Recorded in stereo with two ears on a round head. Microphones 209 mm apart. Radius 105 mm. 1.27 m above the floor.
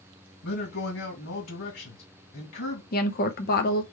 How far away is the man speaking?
About 2 m.